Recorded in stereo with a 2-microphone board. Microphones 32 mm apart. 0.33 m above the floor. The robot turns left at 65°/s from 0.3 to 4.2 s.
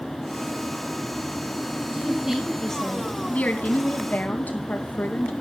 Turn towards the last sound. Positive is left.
turn(degrees=70)